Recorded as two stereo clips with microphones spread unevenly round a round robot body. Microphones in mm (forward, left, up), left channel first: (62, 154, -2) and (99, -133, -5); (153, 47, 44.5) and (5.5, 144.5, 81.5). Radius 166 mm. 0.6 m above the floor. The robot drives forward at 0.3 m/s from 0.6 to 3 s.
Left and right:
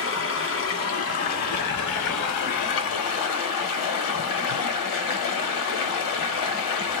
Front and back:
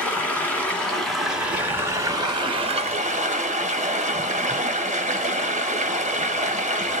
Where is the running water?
50° left, 1.1 m; by 7.0 s 95° left, 0.8 m.